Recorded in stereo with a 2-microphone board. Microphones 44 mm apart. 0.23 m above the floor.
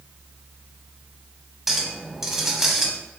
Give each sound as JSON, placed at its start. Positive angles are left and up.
{"t": 1.7, "sound": "a clink", "side_deg": -10, "distance_m": 0.7}